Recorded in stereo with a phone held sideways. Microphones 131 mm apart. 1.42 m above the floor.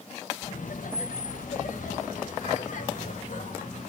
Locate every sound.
0.4 s laughter: 75° left (ahead or behind), 1.2 m